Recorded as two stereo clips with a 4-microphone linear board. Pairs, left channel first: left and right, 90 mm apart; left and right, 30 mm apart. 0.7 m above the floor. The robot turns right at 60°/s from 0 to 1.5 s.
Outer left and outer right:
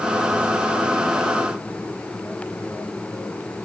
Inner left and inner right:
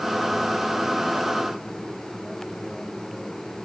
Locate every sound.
Only background noise.